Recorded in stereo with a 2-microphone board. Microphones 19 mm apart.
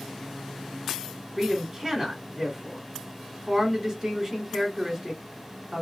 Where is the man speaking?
30° right (ahead or behind), 1.9 m.